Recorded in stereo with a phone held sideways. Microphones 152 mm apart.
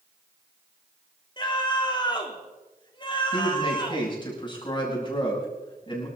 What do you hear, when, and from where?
1.4 s a scream: 30° left (ahead or behind), 3 m
3.3 s a man speaking: 30° left (ahead or behind), 7 m